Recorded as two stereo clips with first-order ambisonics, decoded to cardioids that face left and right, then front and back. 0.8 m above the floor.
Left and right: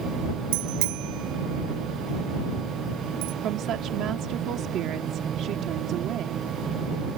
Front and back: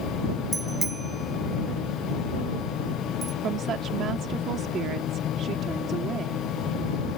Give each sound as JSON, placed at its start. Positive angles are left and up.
{"t": 0.5, "sound": "a bicycle bell", "azimuth_deg": -105}
{"t": 3.4, "sound": "a woman speaking", "azimuth_deg": -130}